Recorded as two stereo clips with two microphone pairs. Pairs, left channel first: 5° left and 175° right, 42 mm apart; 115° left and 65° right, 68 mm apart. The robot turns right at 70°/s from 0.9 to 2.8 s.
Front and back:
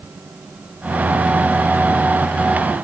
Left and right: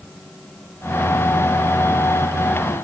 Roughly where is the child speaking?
No child speaking in this recording.